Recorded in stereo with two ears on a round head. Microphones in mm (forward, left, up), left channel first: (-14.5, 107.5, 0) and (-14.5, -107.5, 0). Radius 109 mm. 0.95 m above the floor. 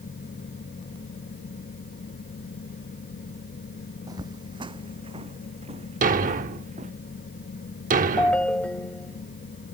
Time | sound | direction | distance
4.1 | footsteps | 15° right (ahead or behind) | ?
6.0 | a thud | 35° right (ahead or behind) | ?
8.2 | a ringtone | 5° left (ahead or behind) | ?